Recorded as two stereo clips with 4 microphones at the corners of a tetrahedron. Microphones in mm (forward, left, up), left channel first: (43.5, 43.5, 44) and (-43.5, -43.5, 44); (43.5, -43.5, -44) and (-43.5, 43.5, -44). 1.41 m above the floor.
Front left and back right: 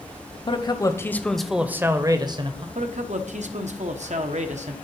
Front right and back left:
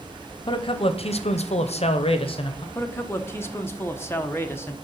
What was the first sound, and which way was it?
A man speaking, straight ahead.